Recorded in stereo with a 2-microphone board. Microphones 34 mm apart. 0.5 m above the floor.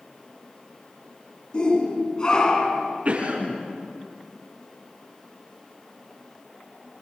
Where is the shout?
30° left (ahead or behind), 5 m; by 2.9 s 25° left (ahead or behind), 5.5 m.